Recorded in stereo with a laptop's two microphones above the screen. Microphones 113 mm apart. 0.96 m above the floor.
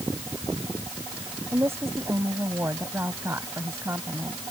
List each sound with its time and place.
1.5 s a woman speaking: 20° right (ahead or behind)